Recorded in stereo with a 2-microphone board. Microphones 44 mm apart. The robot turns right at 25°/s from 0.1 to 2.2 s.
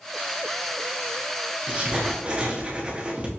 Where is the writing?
30° right (ahead or behind), 0.7 m; by 3.3 s 25° right (ahead or behind), 0.7 m.